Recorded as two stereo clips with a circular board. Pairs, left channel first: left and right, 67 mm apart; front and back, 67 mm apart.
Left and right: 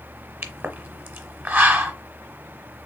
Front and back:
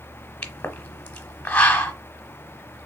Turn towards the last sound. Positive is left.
turn(degrees=-50)